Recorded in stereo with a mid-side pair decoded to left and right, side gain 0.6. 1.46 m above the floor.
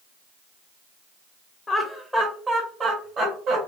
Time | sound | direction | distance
1.7 | laughter | 25° left | 0.7 m